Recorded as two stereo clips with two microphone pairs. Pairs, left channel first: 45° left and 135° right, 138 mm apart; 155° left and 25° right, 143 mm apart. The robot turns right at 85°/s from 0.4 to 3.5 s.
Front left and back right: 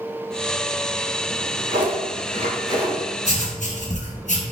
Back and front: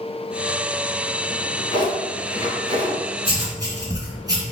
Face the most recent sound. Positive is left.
turn(degrees=35)